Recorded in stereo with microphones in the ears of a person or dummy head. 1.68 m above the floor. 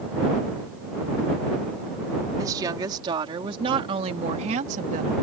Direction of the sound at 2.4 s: 25° right (ahead or behind).